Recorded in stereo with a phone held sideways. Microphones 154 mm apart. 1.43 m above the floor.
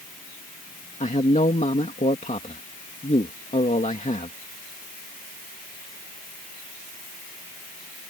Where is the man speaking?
50° left (ahead or behind).